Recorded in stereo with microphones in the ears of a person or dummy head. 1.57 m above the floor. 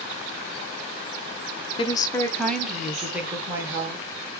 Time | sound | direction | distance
1.8 | a woman speaking | 30° left (ahead or behind) | 0.6 m